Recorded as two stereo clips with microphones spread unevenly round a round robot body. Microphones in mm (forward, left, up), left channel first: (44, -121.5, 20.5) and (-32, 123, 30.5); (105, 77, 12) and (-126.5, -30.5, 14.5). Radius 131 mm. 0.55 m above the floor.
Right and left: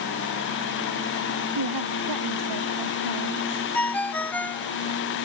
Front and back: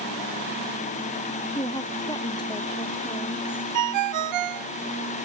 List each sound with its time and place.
1.6 s a woman speaking: 100° left; by 3.6 s 95° left
3.7 s a ringtone: 155° right